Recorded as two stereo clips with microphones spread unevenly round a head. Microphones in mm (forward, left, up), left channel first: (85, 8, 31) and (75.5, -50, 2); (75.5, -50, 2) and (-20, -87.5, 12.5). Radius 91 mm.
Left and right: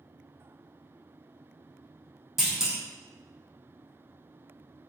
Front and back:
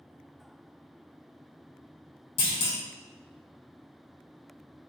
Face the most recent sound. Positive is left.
turn(degrees=0)